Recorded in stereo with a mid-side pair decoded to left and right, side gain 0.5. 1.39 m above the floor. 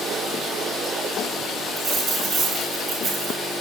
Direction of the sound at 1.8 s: 55° right.